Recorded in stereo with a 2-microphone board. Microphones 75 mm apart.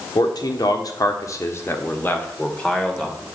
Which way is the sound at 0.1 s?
65° left (ahead or behind).